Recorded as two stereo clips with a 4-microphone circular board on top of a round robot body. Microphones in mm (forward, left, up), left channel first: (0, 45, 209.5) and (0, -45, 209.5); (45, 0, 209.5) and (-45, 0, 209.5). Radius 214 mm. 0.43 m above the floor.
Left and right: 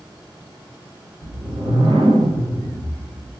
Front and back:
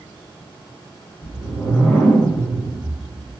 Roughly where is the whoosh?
Right.